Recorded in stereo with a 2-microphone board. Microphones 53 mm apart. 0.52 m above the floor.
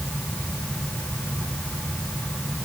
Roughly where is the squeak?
No squeak in this recording.